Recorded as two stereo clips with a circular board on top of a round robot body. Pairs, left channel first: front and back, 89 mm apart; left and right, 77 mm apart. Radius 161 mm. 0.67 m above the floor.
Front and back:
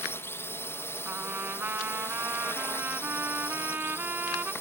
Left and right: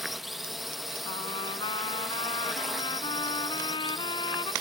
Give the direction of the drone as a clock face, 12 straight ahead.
12 o'clock.